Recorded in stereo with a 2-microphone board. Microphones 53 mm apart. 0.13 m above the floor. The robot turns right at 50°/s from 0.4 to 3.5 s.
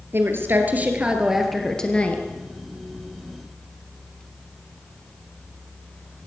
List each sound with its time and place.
0.1 s a woman speaking: 55° right, 2 m; by 2.2 s 35° left, 2 m